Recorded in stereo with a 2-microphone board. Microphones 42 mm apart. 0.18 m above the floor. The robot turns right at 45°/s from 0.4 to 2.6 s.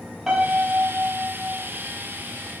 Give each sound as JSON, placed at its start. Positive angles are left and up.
{"t": 0.3, "sound": "a piano", "azimuth_deg": -170, "distance_m": 7.5}